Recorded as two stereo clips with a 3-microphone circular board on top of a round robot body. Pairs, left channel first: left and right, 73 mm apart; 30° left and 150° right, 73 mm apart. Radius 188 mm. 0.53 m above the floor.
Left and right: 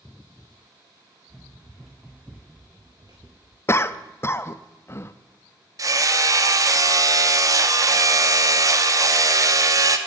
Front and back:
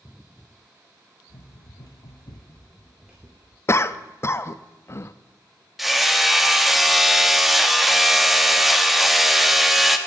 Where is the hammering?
60° right, 1.1 m.